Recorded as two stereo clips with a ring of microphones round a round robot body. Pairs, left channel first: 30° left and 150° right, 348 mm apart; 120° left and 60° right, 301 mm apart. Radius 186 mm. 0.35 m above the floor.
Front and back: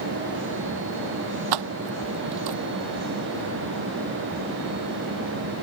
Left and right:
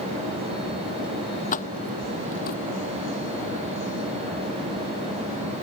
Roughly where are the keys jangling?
Behind.